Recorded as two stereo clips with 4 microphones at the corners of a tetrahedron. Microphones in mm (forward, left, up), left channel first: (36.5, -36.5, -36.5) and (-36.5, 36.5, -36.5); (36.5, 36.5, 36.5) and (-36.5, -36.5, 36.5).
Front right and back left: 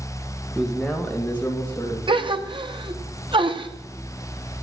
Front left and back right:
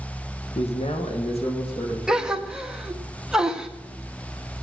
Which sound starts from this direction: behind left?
A gasp, at 2.1 s.